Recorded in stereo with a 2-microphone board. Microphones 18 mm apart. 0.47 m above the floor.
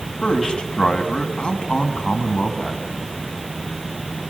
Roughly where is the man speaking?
Left.